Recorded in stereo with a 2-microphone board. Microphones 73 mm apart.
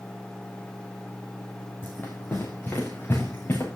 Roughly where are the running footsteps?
Left.